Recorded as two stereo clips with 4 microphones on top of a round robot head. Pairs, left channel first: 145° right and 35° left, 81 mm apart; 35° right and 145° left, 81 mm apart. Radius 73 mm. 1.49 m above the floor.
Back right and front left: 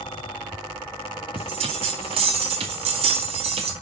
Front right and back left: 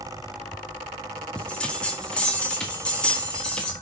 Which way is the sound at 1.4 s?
45° left.